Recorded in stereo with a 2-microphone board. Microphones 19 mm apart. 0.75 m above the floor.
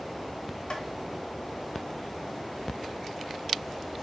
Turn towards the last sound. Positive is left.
turn(degrees=65)  # may be behind; listen again after turning